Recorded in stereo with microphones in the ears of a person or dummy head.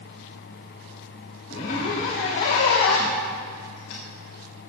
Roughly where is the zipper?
Left.